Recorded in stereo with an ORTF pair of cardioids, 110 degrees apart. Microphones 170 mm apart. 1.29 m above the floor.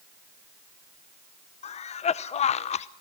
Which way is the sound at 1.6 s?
40° left.